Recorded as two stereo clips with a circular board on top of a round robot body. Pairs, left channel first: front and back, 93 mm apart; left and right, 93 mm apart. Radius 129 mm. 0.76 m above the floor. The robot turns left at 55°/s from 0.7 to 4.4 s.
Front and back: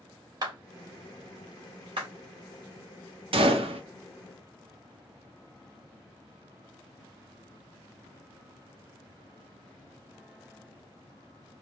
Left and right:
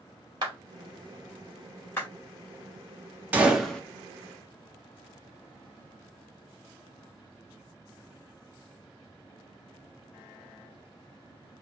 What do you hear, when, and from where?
0.4 s a clap: 135° right, 2.5 m; by 2.1 s 150° left, 2.5 m
3.3 s a gunshot: 165° right, 1.1 m; by 3.8 s 170° left, 1.1 m